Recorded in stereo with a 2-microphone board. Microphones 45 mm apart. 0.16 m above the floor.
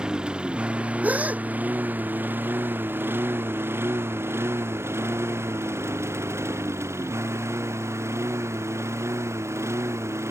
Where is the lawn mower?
20° right (ahead or behind); by 10.3 s 85° right.